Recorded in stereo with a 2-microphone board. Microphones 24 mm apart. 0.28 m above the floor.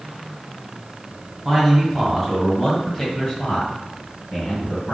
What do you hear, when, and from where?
1.4 s a man speaking: 10° right (ahead or behind), 1.9 m; by 4.9 s 45° left (ahead or behind), 2 m